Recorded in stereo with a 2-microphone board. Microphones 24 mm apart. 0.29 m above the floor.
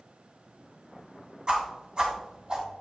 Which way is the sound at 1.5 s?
40° right (ahead or behind).